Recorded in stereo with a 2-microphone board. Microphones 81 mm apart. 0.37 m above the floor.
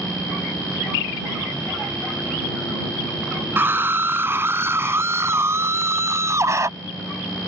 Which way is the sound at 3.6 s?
25° right (ahead or behind).